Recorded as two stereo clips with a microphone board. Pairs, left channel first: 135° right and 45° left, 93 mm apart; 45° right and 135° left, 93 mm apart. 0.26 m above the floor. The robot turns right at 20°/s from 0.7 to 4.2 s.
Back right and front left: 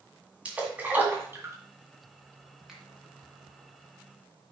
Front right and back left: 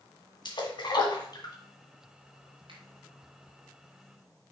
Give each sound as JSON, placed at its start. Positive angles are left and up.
{"t": 0.5, "sound": "a splash", "azimuth_deg": -30, "distance_m": 1.9}
{"t": 2.7, "sound": "a finger snap", "azimuth_deg": 130, "distance_m": 1.9}